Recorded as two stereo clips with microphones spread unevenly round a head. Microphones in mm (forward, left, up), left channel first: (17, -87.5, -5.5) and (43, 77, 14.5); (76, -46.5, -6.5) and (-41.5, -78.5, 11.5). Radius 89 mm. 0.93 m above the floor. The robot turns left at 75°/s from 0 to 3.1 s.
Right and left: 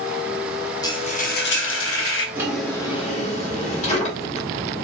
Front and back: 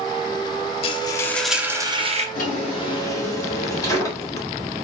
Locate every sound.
0.8 s frying: 30° right, 0.7 m; by 2.2 s 135° right, 0.7 m
2.4 s a drawer: 10° left, 1.6 m; by 4.5 s 50° right, 1.6 m